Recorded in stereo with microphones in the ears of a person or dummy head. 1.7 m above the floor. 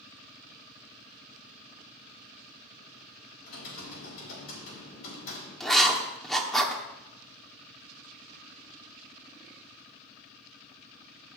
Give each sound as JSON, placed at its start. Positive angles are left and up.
{"t": 3.4, "sound": "typing on a keyboard", "side_deg": 75, "distance_m": 4.0}
{"t": 5.6, "sound": "writing", "side_deg": 15, "distance_m": 0.9}